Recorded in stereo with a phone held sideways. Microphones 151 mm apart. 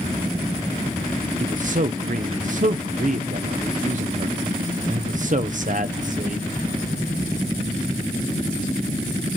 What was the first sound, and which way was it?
A man speaking, 60° right (ahead or behind).